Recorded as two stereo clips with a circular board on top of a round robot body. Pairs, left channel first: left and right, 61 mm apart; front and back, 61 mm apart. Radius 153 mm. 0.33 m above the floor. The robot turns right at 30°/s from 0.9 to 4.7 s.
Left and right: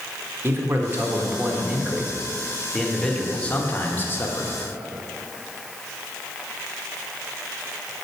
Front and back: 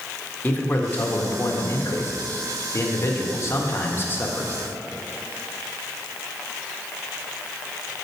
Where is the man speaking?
50° right, 1.6 m; by 4.6 s 60° left, 1.6 m.